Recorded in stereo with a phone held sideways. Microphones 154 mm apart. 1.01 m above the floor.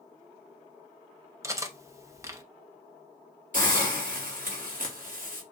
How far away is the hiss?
About 1.7 m.